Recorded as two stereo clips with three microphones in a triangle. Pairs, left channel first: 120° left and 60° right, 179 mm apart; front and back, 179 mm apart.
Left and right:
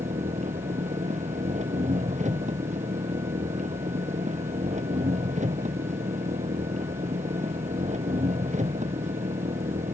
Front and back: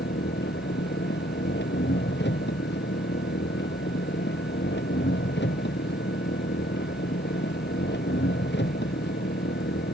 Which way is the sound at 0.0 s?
10° right.